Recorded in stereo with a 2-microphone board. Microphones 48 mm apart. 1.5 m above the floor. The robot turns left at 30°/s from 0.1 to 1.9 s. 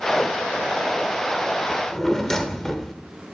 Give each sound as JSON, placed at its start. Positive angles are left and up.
{"t": 1.7, "sound": "a drawer", "side_deg": 15, "distance_m": 1.5}